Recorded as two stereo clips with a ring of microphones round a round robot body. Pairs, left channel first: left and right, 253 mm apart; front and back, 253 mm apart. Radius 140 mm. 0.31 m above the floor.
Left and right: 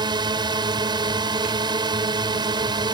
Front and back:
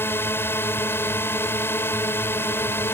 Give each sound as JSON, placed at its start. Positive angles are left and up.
{"t": 0.0, "sound": "a drone", "azimuth_deg": -60}